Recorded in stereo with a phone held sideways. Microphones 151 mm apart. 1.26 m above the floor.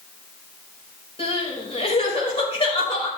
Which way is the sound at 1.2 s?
40° left (ahead or behind).